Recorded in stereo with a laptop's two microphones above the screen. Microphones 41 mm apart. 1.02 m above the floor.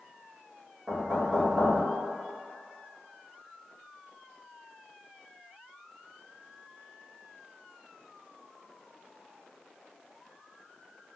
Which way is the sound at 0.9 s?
20° right (ahead or behind).